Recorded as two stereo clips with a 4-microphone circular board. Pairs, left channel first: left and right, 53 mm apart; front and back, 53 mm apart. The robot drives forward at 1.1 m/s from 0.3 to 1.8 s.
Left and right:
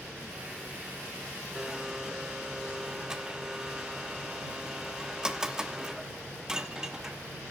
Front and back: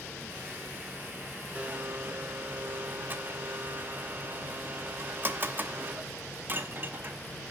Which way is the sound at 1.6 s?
145° right.